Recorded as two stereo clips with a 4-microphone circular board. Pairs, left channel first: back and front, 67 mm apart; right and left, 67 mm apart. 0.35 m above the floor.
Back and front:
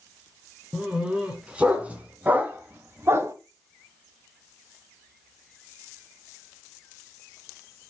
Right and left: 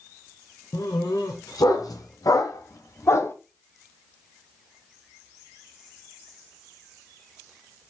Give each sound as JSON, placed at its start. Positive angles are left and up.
{"t": 0.7, "sound": "a dog barking", "azimuth_deg": -75, "distance_m": 1.9}